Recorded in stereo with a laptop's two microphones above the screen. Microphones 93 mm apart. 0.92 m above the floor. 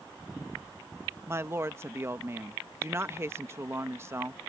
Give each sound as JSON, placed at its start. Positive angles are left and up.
{"t": 1.3, "sound": "a woman speaking", "side_deg": -30}